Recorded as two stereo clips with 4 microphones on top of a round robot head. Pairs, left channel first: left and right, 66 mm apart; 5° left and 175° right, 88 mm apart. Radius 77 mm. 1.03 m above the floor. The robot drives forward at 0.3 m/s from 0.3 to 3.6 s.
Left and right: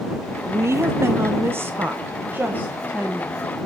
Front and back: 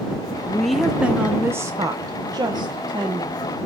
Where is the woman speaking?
70° right, 0.5 m; by 3.4 s 160° right, 0.9 m.